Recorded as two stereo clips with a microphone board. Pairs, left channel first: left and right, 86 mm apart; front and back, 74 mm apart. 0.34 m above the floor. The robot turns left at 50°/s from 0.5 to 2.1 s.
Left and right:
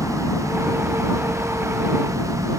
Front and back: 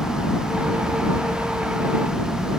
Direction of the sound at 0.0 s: 30° left.